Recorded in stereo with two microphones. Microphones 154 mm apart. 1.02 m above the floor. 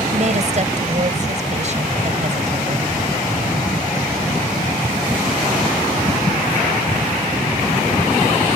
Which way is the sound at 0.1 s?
50° right (ahead or behind).